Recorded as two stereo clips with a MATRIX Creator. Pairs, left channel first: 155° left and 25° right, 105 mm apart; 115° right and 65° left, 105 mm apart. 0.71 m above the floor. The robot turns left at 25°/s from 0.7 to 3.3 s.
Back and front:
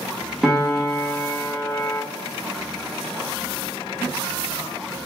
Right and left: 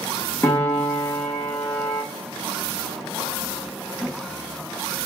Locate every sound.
0.4 s a piano: 105° right, 0.8 m; by 2.0 s 135° right, 0.8 m